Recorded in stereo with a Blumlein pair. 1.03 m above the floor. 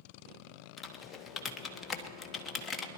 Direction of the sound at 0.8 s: 20° left.